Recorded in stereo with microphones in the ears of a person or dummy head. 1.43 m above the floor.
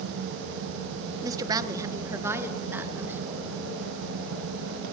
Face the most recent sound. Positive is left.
turn(degrees=-10)  # may be behind; listen again after turning